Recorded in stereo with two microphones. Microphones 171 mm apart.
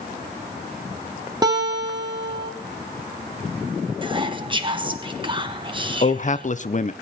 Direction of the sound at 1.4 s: 25° right (ahead or behind).